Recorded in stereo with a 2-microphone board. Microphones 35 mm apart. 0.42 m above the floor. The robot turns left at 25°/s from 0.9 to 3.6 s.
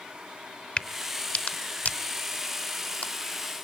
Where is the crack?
30° left (ahead or behind), 1.1 m; by 3.6 s 45° left (ahead or behind), 1.1 m.